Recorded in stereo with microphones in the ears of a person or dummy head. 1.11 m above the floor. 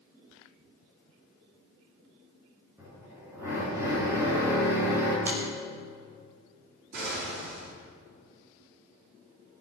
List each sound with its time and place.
2.8 s a drill: 15° right (ahead or behind), 8 m
5.2 s a finger snap: 15° right (ahead or behind), 6 m
6.9 s an explosion: 60° right (ahead or behind), 4.5 m